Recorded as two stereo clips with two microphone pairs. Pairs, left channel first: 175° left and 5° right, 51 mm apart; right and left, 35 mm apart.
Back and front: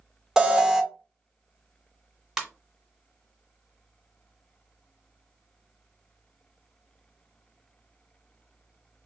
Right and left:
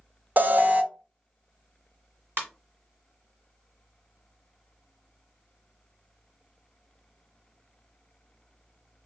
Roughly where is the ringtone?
Left.